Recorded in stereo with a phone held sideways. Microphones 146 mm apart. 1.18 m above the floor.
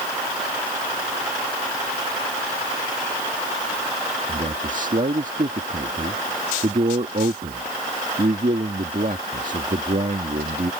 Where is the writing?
I don't hear writing.